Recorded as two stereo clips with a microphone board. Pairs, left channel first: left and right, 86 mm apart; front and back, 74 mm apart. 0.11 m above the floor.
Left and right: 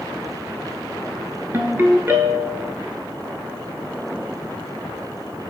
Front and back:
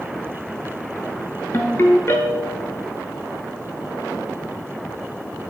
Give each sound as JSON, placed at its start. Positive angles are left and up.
{"t": 1.5, "sound": "a ringtone", "azimuth_deg": -40, "distance_m": 0.6}